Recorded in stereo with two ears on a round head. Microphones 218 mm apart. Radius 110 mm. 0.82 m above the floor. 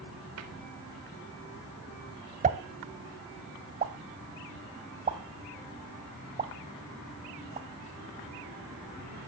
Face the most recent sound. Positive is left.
turn(degrees=-30)  # may be behind; listen again after turning